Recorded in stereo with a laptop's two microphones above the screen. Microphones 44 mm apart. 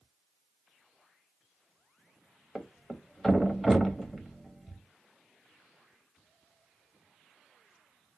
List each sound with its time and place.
2.5 s a thud: centre (ahead or behind), 0.5 m